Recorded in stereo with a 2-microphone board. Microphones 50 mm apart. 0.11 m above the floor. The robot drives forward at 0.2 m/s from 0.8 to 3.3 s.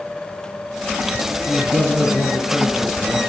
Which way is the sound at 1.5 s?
10° left (ahead or behind).